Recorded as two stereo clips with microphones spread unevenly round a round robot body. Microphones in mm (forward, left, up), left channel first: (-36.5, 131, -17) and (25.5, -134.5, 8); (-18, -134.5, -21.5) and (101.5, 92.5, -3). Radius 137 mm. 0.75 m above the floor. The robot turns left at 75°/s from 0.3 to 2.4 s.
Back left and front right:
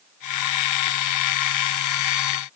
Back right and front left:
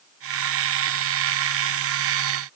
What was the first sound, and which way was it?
Only background noise.